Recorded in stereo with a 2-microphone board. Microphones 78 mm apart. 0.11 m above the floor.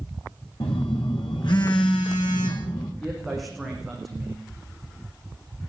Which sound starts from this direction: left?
A phone buzzing, at 0.6 s.